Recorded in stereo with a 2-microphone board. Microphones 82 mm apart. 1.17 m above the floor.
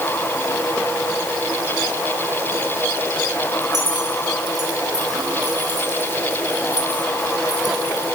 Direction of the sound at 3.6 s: 50° right (ahead or behind).